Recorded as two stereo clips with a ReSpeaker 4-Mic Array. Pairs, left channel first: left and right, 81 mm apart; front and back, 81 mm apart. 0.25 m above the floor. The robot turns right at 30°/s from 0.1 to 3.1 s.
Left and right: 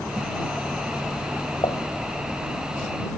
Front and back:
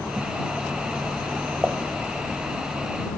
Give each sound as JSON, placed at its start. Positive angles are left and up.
{"t": 1.6, "sound": "dishes clattering", "azimuth_deg": 105}